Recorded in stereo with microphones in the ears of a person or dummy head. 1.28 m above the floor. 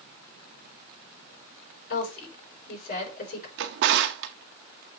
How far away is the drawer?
About 0.8 m.